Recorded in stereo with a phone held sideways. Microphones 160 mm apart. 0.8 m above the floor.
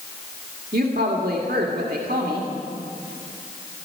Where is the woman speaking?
75° right (ahead or behind), 1.7 m.